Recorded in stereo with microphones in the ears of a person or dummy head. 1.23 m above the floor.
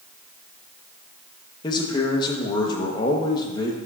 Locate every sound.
1.6 s a man speaking: 30° left (ahead or behind), 1.0 m